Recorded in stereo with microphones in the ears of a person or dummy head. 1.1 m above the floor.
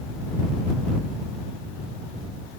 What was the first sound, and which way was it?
Only background noise.